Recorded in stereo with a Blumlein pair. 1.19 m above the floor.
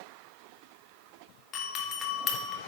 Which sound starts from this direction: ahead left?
A doorbell, at 1.5 s.